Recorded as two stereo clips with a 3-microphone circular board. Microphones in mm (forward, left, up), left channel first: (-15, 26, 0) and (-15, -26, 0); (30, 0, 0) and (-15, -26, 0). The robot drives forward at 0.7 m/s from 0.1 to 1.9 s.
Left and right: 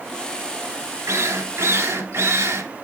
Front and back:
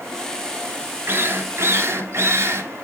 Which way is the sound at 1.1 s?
110° right.